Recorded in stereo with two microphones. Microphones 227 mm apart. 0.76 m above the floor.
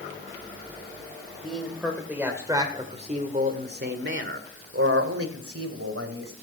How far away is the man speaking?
About 3 m.